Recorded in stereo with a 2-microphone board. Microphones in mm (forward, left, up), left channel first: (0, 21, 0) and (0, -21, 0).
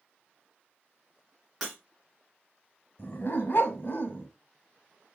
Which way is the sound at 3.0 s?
55° left (ahead or behind).